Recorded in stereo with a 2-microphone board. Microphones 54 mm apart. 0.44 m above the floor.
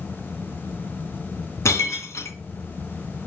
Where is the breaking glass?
65° left (ahead or behind), 2.5 m.